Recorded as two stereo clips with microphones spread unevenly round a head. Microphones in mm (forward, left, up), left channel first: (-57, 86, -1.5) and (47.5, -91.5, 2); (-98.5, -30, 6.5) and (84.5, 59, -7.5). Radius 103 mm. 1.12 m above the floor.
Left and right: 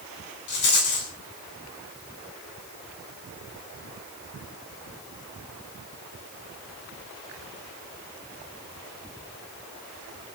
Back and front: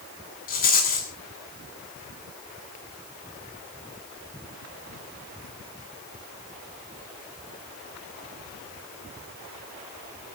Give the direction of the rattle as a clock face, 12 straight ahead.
7 o'clock.